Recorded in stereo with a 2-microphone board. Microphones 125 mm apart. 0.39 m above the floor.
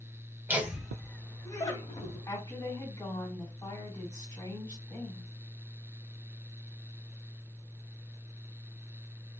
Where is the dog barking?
I don't hear a dog barking.